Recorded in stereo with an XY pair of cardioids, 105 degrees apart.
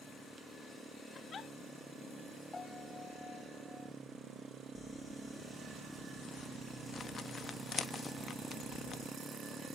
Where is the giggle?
45° left, 1.7 m.